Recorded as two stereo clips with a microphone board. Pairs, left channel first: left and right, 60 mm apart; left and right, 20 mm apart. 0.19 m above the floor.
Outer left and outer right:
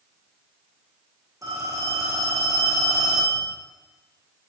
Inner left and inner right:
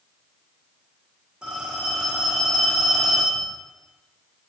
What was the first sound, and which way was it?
A phone ringing, 65° right (ahead or behind).